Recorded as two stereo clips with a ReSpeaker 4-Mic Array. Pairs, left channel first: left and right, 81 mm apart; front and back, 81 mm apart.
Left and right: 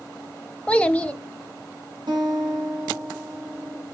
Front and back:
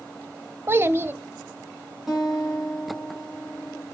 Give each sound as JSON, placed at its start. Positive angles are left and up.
{"t": 0.7, "sound": "a child speaking", "azimuth_deg": 155, "distance_m": 0.6}
{"t": 2.1, "sound": "a guitar", "azimuth_deg": -95, "distance_m": 3.5}